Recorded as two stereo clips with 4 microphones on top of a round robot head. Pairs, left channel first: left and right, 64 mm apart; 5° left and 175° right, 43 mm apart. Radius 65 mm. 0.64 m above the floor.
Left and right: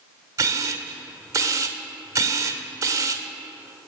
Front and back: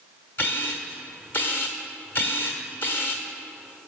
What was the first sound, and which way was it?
A camera shutter, 45° right.